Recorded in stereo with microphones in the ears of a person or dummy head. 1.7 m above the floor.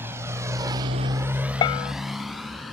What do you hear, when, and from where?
0.0 s a motorcycle: 15° right (ahead or behind); by 2.8 s 5° left (ahead or behind)
1.6 s a bell: 25° left (ahead or behind)